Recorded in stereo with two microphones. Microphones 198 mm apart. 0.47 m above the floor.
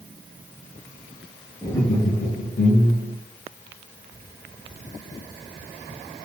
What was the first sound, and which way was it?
Laughter, 15° left (ahead or behind).